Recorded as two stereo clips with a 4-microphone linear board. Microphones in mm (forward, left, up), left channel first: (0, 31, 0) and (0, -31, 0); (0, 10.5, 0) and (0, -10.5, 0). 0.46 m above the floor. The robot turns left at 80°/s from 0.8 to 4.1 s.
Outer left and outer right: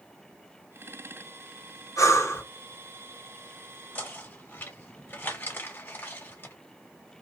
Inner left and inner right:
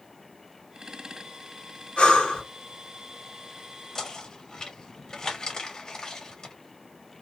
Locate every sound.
2.0 s breathing: 75° left, 1.5 m; by 2.4 s 35° left, 1.5 m
4.0 s knocking: 25° left (ahead or behind), 1.1 m; by 6.5 s 30° left (ahead or behind), 1.1 m